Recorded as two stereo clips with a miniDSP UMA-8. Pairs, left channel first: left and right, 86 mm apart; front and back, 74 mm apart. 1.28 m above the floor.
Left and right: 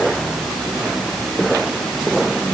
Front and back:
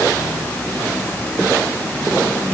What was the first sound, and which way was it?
Only background noise.